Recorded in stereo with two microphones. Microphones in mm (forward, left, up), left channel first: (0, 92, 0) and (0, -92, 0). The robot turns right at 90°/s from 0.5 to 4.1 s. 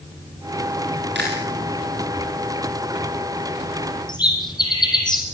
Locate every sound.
1.1 s chewing: 80° right, 6 m; by 1.5 s 70° right (ahead or behind), 6 m
4.1 s a bird: 25° left (ahead or behind), 6 m